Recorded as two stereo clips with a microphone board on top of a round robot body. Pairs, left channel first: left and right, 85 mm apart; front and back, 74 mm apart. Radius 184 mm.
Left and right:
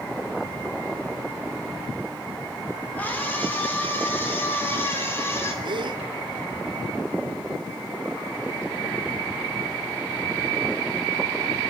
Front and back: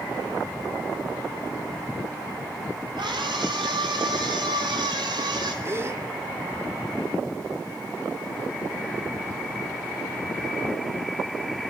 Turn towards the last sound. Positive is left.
turn(degrees=-120)